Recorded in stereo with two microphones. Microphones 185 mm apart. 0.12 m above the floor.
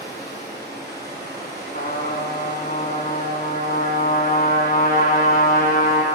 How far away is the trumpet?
About 0.7 m.